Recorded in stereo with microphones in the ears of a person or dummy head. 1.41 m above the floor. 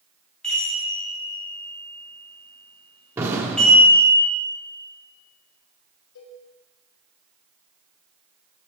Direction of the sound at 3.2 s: 15° right (ahead or behind).